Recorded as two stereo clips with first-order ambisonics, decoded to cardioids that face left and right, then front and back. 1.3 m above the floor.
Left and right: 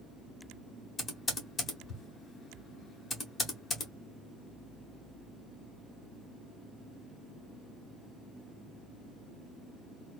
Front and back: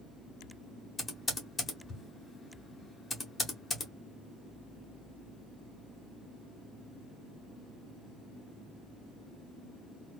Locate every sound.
1.0 s typing on a keyboard: 50° left, 0.9 m